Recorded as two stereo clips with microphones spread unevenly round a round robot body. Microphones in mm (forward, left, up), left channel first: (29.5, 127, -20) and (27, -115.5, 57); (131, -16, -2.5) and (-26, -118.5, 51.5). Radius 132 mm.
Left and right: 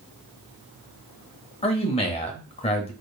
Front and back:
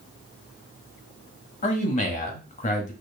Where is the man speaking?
45° left, 1.2 m.